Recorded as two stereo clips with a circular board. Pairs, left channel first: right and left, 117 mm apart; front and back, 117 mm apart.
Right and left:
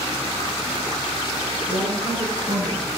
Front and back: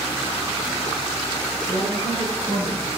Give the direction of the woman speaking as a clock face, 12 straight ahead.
10 o'clock.